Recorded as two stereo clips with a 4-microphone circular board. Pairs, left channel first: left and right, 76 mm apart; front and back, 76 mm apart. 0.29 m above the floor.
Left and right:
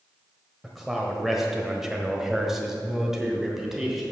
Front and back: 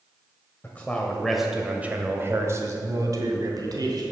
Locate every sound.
0.6 s a man speaking: 5° right, 1.2 m; by 4.0 s 175° right, 2.5 m